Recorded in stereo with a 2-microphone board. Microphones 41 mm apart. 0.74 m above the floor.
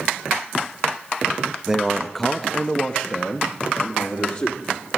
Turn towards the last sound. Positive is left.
turn(degrees=50)  # may be behind; listen again after turning